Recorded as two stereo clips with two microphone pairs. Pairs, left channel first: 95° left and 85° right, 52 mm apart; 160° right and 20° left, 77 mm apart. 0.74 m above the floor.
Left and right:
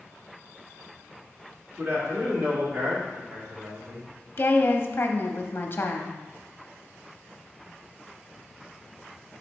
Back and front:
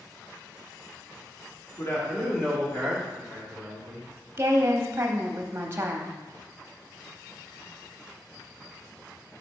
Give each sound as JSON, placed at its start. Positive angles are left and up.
{"t": 1.8, "sound": "a man speaking", "azimuth_deg": -115, "distance_m": 2.0}
{"t": 4.4, "sound": "a woman speaking", "azimuth_deg": 70, "distance_m": 0.7}